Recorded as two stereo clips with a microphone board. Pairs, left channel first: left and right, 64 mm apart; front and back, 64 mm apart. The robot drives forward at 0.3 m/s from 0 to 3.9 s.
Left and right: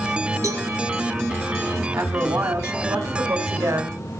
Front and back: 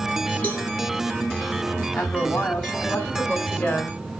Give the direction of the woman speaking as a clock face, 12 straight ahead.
2 o'clock.